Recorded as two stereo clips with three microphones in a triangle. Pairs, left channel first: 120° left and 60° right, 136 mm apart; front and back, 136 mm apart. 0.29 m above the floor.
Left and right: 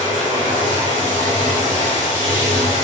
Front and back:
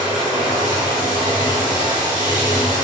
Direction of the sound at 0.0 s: 55° right.